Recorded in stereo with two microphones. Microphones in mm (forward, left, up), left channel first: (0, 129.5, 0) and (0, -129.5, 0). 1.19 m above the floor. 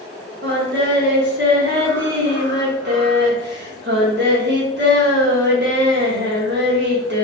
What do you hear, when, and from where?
0.4 s singing: 45° right (ahead or behind), 1.1 m